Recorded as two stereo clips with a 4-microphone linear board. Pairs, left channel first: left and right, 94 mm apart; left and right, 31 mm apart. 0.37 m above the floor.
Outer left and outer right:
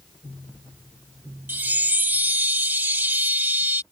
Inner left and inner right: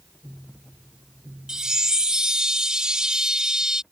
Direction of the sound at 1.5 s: 20° right (ahead or behind).